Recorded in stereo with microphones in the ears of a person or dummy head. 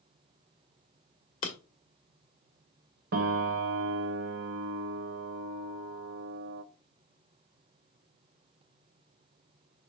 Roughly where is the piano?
Right.